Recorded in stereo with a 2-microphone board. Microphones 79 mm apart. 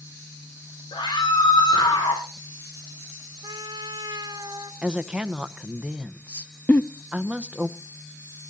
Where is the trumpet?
55° right (ahead or behind), 1.1 m.